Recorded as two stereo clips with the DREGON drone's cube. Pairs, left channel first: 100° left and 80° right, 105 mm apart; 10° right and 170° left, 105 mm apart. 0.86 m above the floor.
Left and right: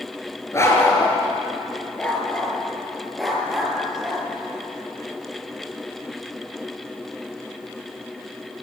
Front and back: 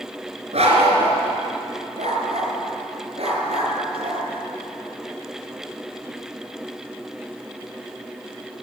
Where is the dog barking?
165° left, 4.5 m; by 4.3 s 160° right, 6 m.